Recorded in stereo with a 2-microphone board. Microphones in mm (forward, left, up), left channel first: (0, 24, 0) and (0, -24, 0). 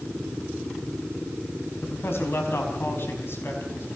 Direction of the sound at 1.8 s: 50° left (ahead or behind).